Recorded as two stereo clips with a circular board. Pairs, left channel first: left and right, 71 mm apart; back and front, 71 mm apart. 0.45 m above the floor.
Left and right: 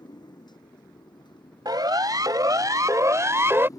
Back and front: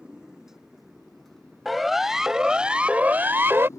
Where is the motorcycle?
80° left; by 3.8 s 130° left.